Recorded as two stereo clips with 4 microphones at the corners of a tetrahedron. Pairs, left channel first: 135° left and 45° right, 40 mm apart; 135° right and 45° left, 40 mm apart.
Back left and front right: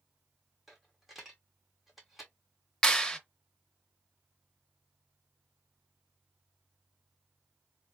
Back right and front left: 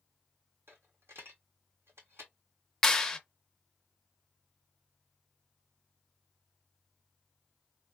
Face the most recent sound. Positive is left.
turn(degrees=170)